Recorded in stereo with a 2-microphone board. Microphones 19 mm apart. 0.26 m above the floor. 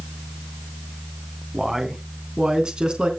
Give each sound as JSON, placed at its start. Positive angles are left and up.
{"t": 1.5, "sound": "a man speaking", "side_deg": -30, "distance_m": 2.5}